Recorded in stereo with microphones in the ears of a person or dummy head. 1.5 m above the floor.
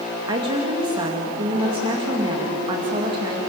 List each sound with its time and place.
0.3 s a woman speaking: 25° right (ahead or behind), 2 m